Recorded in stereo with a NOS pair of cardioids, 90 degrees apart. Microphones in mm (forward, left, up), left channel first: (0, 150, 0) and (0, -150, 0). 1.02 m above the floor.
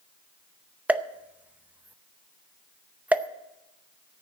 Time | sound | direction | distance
0.9 | a pop | 5° right | 0.6 m